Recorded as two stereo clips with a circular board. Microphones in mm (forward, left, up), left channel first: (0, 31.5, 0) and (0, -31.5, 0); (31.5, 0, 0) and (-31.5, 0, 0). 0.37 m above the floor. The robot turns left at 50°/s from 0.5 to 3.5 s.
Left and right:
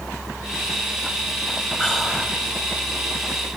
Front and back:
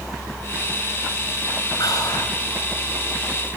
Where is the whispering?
15° left, 4.5 m; by 2.4 s 15° right, 4.5 m.